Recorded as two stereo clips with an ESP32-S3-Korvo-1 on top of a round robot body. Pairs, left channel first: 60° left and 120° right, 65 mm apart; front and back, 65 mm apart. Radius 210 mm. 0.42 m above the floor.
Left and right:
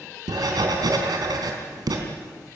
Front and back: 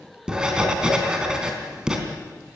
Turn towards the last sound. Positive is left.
turn(degrees=-100)